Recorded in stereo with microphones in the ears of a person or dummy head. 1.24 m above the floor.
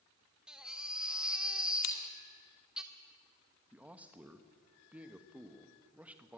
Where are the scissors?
80° left, 2 m.